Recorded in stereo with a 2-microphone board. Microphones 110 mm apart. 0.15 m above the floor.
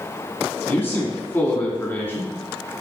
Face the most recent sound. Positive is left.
turn(degrees=20)  # may be behind; listen again after turning